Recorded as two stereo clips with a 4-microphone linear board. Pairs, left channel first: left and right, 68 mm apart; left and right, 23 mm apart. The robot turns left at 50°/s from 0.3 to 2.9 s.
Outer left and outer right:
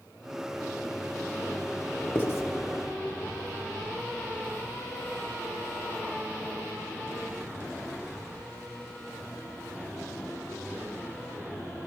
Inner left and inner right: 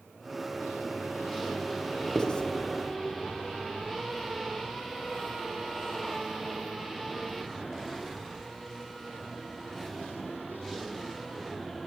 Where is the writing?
30° left (ahead or behind), 1.2 m; by 2.4 s 45° left (ahead or behind), 1.2 m.